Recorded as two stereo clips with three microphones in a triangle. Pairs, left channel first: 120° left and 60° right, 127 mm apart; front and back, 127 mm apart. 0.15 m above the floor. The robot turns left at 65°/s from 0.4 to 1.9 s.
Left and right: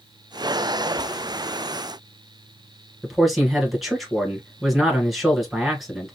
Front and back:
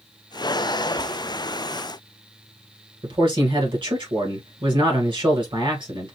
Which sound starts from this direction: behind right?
A man speaking, at 3.0 s.